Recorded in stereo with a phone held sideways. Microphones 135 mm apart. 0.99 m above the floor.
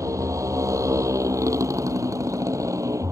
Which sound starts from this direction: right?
A motorcycle, at 0.0 s.